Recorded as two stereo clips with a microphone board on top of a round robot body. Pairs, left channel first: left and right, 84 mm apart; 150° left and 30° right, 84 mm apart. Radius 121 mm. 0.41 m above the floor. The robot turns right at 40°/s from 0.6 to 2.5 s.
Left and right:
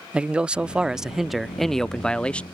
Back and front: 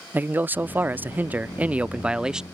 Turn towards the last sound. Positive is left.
turn(degrees=40)